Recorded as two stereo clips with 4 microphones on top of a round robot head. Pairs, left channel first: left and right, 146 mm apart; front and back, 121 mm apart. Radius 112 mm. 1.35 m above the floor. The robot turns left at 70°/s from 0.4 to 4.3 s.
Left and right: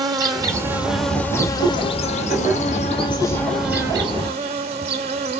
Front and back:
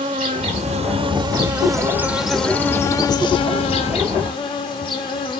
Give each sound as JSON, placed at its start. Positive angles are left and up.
{"t": 0.0, "sound": "an insect", "azimuth_deg": -140, "distance_m": 0.9}